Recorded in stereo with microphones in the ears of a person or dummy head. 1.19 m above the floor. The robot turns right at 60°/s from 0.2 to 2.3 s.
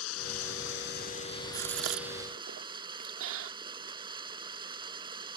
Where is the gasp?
50° right (ahead or behind); by 3.5 s 80° right.